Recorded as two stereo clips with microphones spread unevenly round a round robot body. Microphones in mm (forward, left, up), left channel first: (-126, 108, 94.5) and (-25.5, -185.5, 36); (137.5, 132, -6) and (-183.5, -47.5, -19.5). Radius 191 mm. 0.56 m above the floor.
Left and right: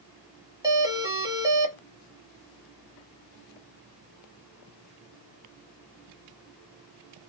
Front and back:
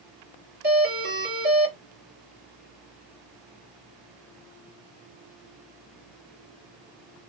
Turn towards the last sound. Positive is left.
turn(degrees=-120)